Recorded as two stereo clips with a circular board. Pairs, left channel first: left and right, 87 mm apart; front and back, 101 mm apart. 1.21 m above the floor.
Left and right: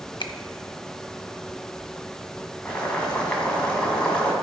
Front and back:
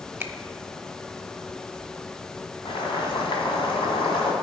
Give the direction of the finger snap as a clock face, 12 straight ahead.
8 o'clock.